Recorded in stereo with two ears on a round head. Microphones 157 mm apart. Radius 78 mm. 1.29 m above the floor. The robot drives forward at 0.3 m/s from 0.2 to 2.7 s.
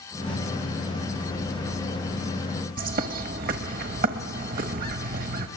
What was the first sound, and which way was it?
A bird, 55° right (ahead or behind).